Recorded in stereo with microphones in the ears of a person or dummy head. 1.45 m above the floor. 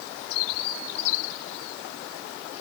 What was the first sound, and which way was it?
Only background noise.